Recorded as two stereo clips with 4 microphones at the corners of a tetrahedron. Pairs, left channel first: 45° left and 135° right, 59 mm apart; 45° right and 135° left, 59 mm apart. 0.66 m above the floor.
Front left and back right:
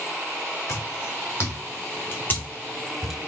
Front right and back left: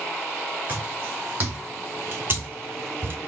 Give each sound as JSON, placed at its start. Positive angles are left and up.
{"t": 0.7, "sound": "footsteps", "azimuth_deg": 70, "distance_m": 2.5}